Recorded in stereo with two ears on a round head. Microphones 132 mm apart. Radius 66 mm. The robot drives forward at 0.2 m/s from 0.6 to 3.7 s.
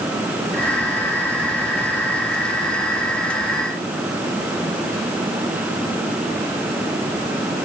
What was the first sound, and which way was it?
Only background noise.